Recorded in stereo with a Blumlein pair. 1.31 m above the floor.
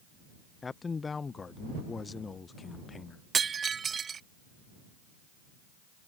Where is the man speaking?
15° left.